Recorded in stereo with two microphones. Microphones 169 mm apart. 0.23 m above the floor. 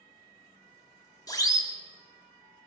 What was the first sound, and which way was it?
A siren, 25° left (ahead or behind).